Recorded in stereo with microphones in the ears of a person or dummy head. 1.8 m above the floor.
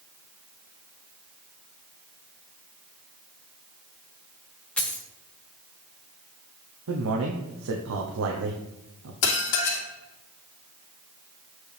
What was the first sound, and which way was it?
A dropped coin, 5° left (ahead or behind).